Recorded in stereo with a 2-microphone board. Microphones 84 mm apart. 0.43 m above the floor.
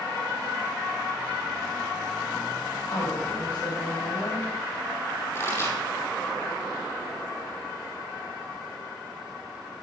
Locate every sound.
2.9 s a woman speaking: 70° left (ahead or behind), 3 m
5.3 s a pop: 35° left (ahead or behind), 5 m